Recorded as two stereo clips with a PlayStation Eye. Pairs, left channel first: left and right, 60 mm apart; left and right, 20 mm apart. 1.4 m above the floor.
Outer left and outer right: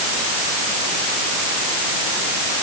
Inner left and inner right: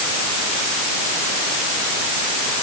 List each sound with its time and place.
Only background noise.